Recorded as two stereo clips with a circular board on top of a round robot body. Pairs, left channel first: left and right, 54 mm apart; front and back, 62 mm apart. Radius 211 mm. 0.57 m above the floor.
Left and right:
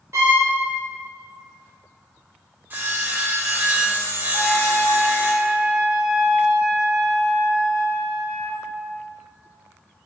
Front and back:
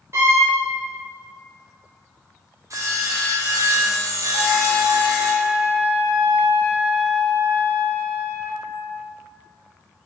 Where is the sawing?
145° right, 1.4 m.